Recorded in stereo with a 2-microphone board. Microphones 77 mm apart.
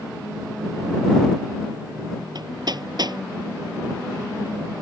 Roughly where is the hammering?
Right.